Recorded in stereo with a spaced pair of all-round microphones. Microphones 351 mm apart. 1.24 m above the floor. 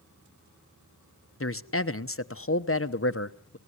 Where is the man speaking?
40° left (ahead or behind), 0.9 m.